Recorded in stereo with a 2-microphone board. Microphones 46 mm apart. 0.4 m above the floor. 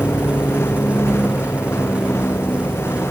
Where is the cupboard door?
I don't hear a cupboard door.